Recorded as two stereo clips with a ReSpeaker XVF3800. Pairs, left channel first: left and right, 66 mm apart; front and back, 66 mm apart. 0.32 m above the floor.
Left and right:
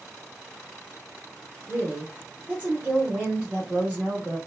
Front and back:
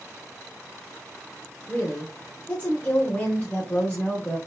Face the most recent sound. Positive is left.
turn(degrees=-40)